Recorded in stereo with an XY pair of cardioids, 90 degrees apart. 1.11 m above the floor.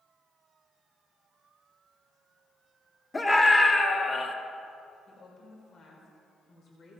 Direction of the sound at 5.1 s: 65° left.